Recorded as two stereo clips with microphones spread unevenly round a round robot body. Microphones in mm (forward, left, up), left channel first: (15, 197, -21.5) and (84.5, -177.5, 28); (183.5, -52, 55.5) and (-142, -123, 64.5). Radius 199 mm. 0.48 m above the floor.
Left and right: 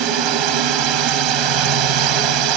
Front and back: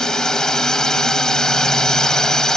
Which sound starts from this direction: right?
A drone, at 0.0 s.